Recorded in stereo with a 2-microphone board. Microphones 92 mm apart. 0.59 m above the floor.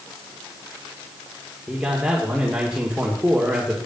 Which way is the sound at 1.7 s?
10° right (ahead or behind).